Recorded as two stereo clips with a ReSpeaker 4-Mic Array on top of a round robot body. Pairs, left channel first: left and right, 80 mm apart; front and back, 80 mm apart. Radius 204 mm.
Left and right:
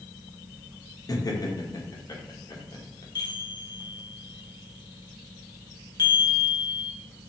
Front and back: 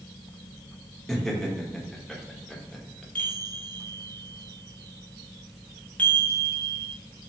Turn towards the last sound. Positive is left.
turn(degrees=75)